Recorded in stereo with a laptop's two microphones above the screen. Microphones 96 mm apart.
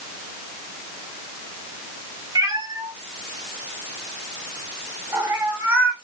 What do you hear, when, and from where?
2.4 s a cat meowing: 40° right (ahead or behind), 1.1 m; by 5.9 s 20° right (ahead or behind), 1.7 m